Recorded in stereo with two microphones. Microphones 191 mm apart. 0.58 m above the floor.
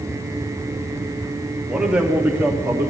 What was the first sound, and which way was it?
A man speaking, 5° right (ahead or behind).